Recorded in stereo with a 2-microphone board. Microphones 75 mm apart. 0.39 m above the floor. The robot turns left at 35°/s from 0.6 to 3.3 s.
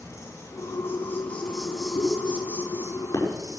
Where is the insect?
45° left, 4 m; by 3.6 s 50° right, 4 m.